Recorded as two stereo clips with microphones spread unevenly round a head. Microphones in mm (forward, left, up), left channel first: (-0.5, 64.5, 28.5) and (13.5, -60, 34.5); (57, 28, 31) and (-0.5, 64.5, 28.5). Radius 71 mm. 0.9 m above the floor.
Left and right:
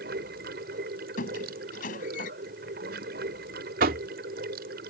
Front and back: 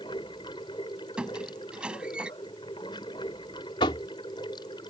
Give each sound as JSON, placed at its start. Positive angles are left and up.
{"t": 0.0, "sound": "running water", "azimuth_deg": -80}
{"t": 1.2, "sound": "a squeak", "azimuth_deg": 70}
{"t": 3.8, "sound": "knocking", "azimuth_deg": -70}